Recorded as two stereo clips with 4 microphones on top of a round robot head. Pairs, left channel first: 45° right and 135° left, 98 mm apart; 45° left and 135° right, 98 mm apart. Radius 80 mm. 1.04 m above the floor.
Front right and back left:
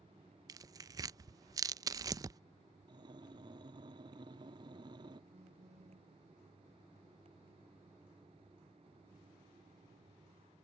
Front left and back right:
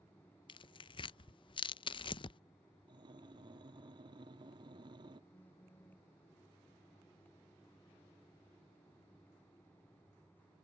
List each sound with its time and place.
0.5 s tearing paper: 80° left
2.9 s breathing: straight behind
5.3 s a phone buzzing: 120° left